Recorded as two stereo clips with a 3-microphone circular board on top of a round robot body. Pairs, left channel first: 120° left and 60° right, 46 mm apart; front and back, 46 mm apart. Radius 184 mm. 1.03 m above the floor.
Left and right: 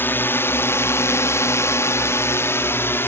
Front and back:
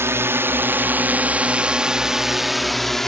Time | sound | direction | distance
0.0 | a drone | 160° left | ?